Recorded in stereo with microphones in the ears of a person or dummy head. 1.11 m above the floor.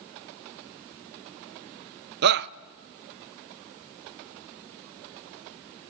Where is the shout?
60° right (ahead or behind), 0.6 m.